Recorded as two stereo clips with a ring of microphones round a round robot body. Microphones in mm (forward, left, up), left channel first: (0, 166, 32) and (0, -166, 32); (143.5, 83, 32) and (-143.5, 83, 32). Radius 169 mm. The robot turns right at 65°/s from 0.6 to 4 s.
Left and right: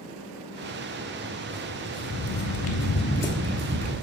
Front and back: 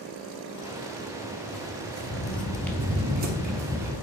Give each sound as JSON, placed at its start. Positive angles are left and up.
{"t": 1.5, "sound": "footsteps", "azimuth_deg": -20, "distance_m": 2.0}